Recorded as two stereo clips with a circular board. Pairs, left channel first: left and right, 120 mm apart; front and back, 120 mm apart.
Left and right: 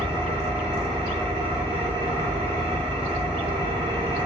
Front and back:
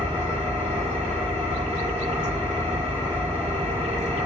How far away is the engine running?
About 1.7 m.